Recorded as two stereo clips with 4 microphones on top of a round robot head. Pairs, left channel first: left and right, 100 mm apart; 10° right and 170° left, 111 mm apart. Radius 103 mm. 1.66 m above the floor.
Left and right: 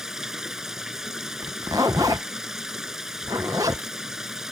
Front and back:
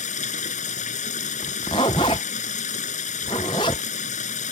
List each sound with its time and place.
0.0 s running water: 5° right
1.4 s a zipper: 35° right